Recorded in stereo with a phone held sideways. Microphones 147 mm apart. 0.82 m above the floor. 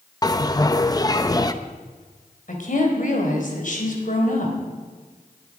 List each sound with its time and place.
0.2 s a bell: 25° left (ahead or behind), 0.8 m
2.5 s a woman speaking: 60° left (ahead or behind), 4 m